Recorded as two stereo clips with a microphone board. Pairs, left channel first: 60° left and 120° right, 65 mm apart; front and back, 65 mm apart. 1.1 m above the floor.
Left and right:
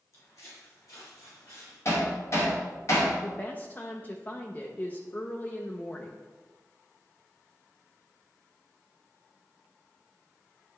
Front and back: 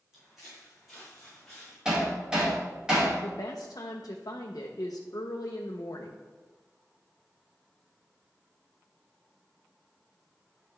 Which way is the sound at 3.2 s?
Straight ahead.